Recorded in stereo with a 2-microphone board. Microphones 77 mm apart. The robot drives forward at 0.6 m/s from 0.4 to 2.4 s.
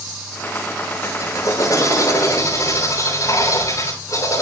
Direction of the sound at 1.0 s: 45° left (ahead or behind).